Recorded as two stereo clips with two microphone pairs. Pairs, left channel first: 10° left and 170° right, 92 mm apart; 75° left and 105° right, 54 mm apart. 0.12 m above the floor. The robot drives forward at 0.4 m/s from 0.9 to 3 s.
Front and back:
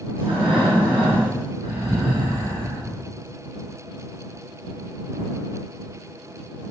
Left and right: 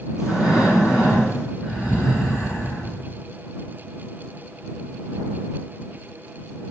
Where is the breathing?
175° left, 5 m.